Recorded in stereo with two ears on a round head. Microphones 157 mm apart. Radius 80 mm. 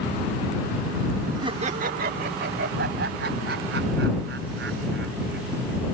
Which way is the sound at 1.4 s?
25° right (ahead or behind).